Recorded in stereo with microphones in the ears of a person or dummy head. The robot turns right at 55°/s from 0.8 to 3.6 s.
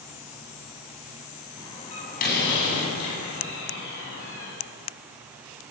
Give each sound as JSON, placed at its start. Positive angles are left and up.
{"t": 1.6, "sound": "a door slam", "side_deg": 20, "distance_m": 8.0}